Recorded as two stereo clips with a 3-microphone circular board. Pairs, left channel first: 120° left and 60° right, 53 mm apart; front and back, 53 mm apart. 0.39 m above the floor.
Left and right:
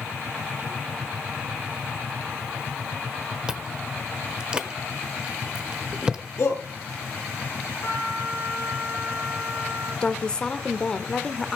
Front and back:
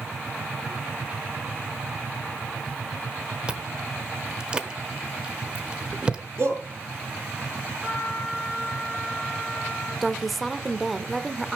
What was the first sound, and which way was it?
Chewing, 120° right.